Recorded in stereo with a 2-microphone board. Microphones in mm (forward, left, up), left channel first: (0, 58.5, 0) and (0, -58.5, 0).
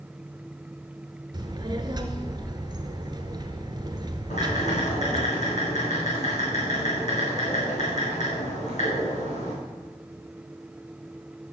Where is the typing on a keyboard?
80° left, 4.5 m.